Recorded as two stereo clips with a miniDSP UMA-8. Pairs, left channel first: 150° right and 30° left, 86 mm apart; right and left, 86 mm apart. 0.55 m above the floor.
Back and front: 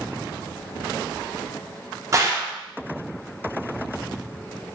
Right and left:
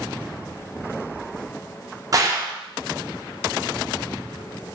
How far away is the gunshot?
About 0.5 m.